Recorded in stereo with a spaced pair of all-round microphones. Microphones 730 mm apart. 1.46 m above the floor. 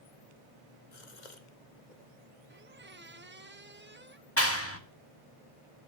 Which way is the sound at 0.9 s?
75° left (ahead or behind).